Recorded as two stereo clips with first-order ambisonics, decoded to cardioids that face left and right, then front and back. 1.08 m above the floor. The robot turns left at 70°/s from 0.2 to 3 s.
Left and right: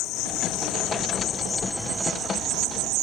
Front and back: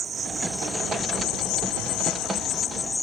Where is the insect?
115° left; by 3.0 s 80° right.